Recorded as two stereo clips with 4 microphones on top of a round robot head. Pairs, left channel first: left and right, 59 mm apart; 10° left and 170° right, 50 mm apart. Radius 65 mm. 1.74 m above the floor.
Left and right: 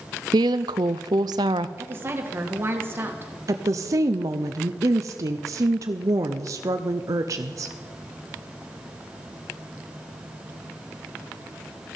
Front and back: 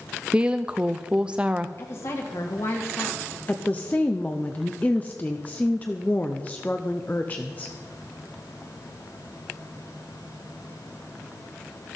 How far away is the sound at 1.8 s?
About 1.9 m.